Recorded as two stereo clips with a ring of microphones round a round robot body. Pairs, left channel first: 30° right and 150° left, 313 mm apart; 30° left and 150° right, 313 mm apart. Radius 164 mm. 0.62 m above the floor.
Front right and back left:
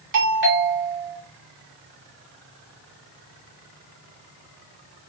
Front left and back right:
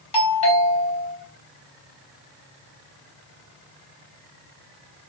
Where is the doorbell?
100° left, 2 m.